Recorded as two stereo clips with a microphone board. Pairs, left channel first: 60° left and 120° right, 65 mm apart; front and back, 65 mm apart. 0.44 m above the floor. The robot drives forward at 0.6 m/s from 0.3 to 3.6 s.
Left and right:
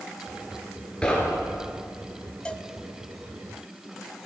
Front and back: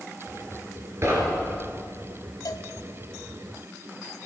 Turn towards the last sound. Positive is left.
turn(degrees=-40)